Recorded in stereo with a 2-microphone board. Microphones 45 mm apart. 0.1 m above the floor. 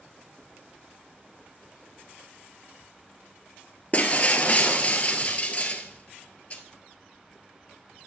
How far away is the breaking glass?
About 1.0 m.